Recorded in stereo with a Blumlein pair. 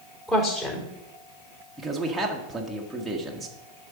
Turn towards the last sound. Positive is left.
turn(degrees=-5)